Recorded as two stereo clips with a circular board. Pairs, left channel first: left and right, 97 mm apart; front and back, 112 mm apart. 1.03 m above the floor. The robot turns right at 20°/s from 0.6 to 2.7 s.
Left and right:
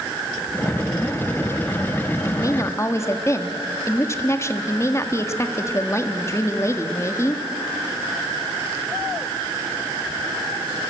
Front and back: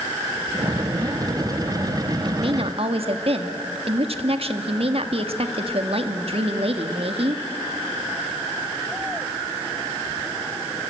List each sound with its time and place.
2.2 s a woman speaking: 140° left, 1.6 m; by 7.4 s 150° left, 1.6 m